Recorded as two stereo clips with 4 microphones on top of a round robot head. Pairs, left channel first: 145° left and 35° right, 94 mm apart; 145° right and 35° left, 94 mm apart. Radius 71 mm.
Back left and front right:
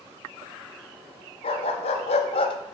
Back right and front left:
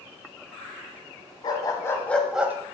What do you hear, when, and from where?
1.4 s a dog barking: 165° left, 1.3 m; by 2.5 s 105° left, 0.9 m